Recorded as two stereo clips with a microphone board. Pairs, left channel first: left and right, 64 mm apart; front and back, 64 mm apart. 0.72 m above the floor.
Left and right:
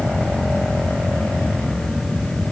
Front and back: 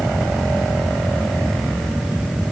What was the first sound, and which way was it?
Only background noise.